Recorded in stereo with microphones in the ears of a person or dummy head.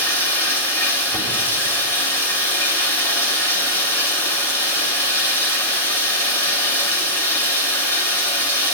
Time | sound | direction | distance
0.0 | running water | 15° left (ahead or behind) | 2.5 m